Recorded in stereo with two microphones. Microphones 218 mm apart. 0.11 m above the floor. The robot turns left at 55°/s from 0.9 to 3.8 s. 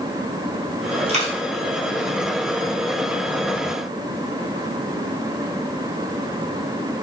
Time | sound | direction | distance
1.1 | a dropped coin | 30° right (ahead or behind) | 1.2 m